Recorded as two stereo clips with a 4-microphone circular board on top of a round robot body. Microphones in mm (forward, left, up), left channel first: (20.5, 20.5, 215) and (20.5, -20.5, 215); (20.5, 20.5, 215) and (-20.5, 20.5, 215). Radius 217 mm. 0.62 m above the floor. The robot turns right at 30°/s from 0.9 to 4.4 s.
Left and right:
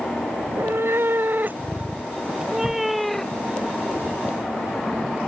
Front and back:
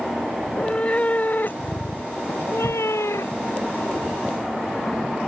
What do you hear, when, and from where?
0.4 s a cat meowing: 65° right; by 3.6 s 15° left